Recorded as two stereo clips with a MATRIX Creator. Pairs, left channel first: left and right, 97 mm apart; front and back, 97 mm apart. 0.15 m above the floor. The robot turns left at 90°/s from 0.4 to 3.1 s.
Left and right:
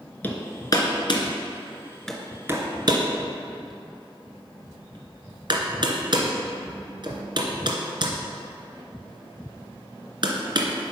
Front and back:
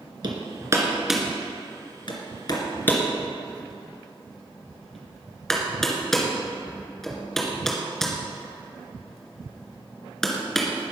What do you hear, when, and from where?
0.2 s hammering: 160° left, 2 m; by 10.7 s 85° right, 2 m